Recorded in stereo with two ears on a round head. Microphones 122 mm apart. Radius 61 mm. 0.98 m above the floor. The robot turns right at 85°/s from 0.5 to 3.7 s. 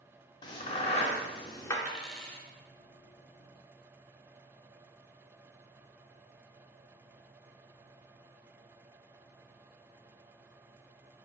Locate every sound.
0.4 s a crack: 30° left (ahead or behind), 0.7 m; by 1.8 s 20° left (ahead or behind), 0.7 m
1.9 s a dropped coin: 10° right (ahead or behind), 0.8 m; by 2.5 s 15° left (ahead or behind), 0.8 m